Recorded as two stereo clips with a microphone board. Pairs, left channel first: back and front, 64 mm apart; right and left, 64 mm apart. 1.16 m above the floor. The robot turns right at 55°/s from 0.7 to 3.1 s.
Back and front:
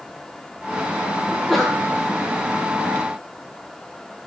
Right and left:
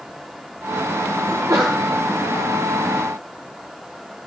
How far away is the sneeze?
About 1.0 m.